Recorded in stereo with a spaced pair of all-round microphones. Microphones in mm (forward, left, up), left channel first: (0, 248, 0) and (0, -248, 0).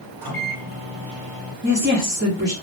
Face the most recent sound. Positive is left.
turn(degrees=-20)  # may be behind; listen again after turning